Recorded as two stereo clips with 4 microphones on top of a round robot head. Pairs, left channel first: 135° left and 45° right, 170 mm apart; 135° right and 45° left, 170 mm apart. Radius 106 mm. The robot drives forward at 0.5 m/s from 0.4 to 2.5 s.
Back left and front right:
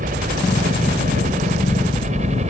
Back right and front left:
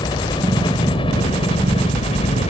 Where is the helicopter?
75° right; by 2.5 s 90° right.